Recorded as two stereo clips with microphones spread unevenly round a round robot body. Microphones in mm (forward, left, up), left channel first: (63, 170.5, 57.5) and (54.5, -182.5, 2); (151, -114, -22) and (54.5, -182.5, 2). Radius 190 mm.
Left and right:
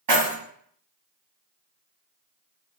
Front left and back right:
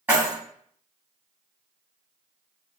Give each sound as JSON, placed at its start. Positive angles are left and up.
{"t": 0.1, "sound": "keys jangling", "azimuth_deg": -70, "distance_m": 1.8}